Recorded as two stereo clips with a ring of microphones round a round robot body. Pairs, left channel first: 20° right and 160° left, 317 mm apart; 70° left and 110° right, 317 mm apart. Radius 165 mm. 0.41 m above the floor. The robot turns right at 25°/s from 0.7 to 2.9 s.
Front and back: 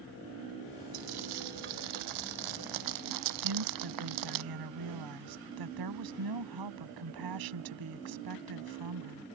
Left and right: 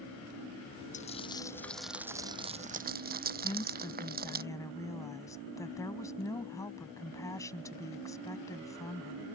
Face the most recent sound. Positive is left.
turn(degrees=150)